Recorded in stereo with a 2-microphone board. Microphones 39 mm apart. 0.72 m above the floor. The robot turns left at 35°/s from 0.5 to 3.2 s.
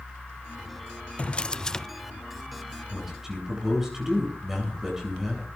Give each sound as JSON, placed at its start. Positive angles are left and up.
{"t": 1.2, "sound": "a drawer", "side_deg": 35, "distance_m": 0.5}
{"t": 2.9, "sound": "a man speaking", "side_deg": 0, "distance_m": 8.5}